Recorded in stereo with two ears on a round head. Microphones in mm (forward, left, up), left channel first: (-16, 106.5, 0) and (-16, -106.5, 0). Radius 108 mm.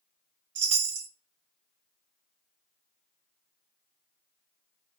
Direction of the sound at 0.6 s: 60° right (ahead or behind).